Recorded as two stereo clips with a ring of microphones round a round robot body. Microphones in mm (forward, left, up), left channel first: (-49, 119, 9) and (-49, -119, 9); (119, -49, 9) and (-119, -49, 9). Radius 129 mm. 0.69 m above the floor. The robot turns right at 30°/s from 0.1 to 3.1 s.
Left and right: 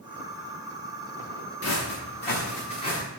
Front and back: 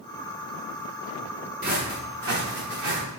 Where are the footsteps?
120° left, 4.5 m; by 3.0 s 165° left, 5.5 m.